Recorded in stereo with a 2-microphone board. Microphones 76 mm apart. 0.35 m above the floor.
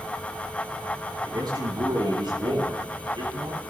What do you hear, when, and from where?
1.2 s a man speaking: 60° right (ahead or behind), 7 m; by 3.6 s 75° right (ahead or behind), 8.5 m